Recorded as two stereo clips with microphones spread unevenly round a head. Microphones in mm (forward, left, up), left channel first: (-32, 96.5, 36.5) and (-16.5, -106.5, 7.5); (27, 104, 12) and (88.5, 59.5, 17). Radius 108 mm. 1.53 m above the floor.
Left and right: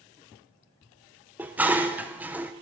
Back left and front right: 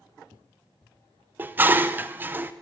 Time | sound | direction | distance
1.4 | dishes clattering | 5° left | 0.5 m